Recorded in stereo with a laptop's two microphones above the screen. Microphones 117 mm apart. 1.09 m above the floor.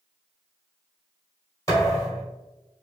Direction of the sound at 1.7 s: 30° left (ahead or behind).